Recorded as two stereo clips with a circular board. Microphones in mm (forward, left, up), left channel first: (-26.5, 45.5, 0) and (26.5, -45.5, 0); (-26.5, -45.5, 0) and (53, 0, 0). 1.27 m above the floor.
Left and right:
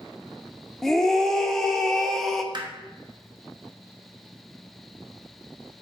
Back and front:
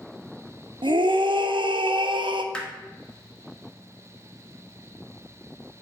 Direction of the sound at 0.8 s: 35° left.